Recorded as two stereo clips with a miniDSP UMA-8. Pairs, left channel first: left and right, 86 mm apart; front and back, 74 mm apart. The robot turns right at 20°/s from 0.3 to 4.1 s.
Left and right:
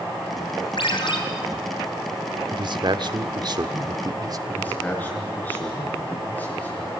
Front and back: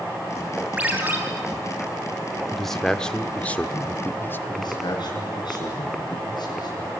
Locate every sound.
0.8 s a ringtone: 110° left, 3.5 m; by 1.2 s 115° left, 3.5 m
2.5 s a man speaking: 90° right, 1.2 m; by 4.4 s 60° right, 1.2 m
4.5 s a man speaking: 20° left, 7 m